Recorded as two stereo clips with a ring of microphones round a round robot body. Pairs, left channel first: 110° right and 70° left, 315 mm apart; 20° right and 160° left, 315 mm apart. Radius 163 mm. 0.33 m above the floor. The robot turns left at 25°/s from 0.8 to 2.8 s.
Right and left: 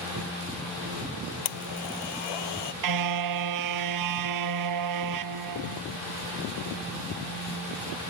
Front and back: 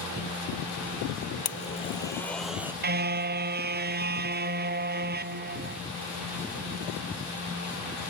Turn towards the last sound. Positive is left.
turn(degrees=95)